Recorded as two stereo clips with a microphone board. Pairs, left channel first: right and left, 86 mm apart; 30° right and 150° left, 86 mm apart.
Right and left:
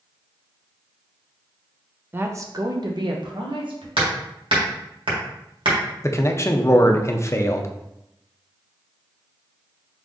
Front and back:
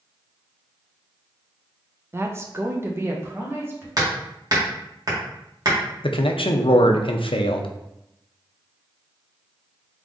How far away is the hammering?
About 1.5 m.